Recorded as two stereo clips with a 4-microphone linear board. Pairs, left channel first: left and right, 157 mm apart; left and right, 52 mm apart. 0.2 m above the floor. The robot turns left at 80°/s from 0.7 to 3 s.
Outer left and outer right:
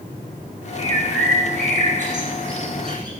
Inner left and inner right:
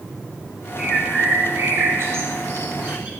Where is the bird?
30° left (ahead or behind), 1.8 m; by 3.1 s 30° right (ahead or behind), 1.8 m.